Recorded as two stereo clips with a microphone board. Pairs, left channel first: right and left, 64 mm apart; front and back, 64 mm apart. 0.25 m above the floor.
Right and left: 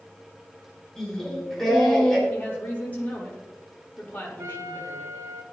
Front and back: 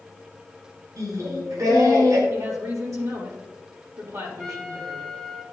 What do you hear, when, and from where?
1.0 s singing: 170° right, 4.5 m
2.3 s a woman speaking: 155° right, 5.5 m
4.4 s a trumpet: 80° left, 1.2 m